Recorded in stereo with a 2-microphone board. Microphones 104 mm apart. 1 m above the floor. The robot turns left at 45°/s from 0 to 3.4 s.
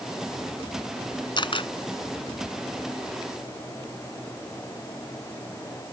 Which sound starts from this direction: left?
A camera shutter, at 1.4 s.